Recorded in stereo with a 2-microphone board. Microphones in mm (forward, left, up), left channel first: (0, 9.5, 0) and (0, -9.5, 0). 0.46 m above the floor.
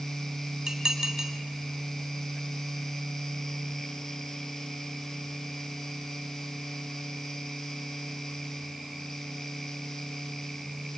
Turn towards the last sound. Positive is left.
turn(degrees=-40)  # may be behind; listen again after turning